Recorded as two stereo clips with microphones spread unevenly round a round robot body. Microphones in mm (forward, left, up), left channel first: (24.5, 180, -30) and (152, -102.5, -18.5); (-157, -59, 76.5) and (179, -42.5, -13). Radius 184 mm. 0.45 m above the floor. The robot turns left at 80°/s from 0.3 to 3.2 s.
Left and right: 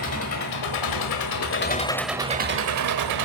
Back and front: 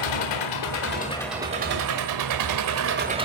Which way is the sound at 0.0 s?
165° left.